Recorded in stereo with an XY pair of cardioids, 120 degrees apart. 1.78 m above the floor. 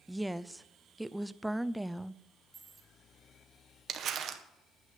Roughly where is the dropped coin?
Ahead.